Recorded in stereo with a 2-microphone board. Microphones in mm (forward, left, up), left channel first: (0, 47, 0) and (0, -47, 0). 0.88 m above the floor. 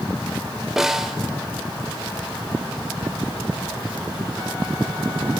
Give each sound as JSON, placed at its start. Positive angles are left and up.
{"t": 0.8, "sound": "a snare drum", "side_deg": -5, "distance_m": 1.3}